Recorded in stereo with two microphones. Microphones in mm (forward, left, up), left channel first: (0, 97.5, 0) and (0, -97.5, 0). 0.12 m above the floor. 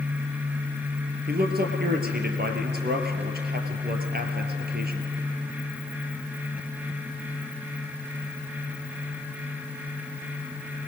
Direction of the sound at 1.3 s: 55° right (ahead or behind).